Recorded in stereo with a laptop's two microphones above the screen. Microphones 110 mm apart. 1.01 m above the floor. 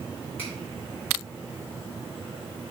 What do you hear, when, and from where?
0.4 s a finger snap: 15° left (ahead or behind), 2.5 m